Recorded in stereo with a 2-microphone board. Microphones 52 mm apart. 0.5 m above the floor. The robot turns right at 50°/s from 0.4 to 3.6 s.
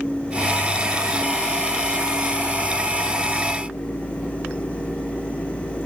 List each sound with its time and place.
Only background noise.